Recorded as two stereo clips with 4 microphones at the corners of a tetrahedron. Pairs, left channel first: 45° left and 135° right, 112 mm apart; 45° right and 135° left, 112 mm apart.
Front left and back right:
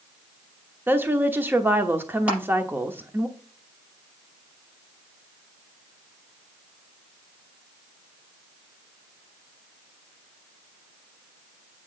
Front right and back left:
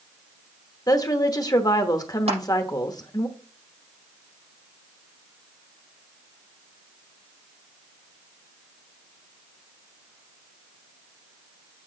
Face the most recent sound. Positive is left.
turn(degrees=150)